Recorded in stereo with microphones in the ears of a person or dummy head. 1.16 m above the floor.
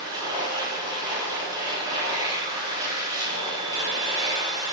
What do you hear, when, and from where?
0.0 s a machine running: 20° right (ahead or behind), 2 m